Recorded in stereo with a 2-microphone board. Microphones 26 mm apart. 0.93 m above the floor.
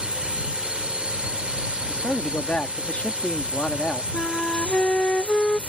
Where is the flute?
50° left (ahead or behind).